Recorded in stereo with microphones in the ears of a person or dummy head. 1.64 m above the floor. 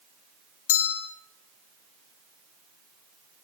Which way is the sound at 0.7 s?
75° left (ahead or behind).